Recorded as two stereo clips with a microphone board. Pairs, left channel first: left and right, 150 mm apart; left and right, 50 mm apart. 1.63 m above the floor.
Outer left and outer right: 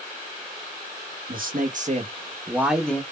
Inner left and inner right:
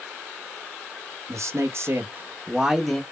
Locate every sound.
1.3 s a man speaking: 70° right (ahead or behind), 0.7 m; by 3.0 s 10° left (ahead or behind), 0.5 m